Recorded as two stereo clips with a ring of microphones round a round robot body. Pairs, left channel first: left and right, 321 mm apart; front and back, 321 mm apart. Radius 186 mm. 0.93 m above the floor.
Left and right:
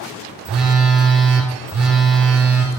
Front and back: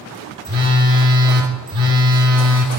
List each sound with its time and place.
0.5 s a phone buzzing: straight behind, 2.5 m